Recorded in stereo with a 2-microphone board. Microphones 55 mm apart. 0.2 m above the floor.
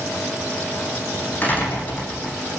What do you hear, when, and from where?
1.4 s a door slam: 35° left (ahead or behind), 9 m